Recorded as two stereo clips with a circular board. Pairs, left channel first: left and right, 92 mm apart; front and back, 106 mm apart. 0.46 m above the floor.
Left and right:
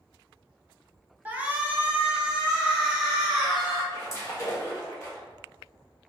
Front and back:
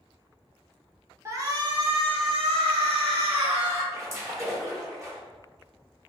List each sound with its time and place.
1.2 s a shout: 145° right, 0.8 m; by 3.8 s 175° right, 2.5 m
3.9 s a splash: 130° left, 1.3 m